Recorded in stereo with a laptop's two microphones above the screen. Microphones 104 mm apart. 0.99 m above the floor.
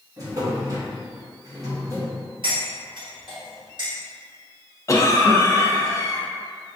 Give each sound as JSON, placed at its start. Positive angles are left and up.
{"t": 0.2, "sound": "a drawer", "side_deg": -35, "distance_m": 0.8}
{"t": 2.4, "sound": "cutlery clinking", "side_deg": -55, "distance_m": 1.3}
{"t": 4.9, "sound": "a cough", "side_deg": 30, "distance_m": 0.7}